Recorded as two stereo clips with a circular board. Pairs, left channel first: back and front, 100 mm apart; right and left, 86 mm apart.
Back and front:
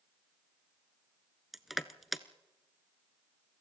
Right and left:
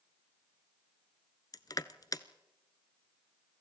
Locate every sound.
1.5 s crushing: 90° right, 0.8 m